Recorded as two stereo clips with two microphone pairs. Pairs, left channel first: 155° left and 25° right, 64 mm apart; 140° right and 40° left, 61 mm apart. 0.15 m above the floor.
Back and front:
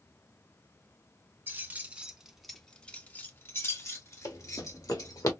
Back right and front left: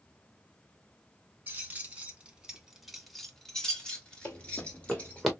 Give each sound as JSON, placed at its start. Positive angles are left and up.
{"t": 1.5, "sound": "keys jangling", "azimuth_deg": 0, "distance_m": 1.1}
{"t": 4.2, "sound": "running footsteps", "azimuth_deg": 165, "distance_m": 1.5}